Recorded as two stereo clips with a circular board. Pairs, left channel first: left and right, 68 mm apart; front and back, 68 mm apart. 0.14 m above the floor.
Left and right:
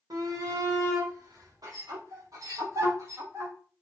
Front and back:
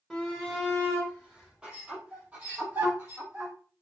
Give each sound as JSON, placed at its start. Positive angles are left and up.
{"t": 0.1, "sound": "a shout", "azimuth_deg": -90, "distance_m": 5.5}